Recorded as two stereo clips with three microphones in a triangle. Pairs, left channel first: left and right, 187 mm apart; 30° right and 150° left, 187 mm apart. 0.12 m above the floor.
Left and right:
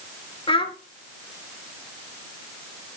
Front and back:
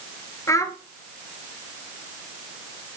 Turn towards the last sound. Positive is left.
turn(degrees=35)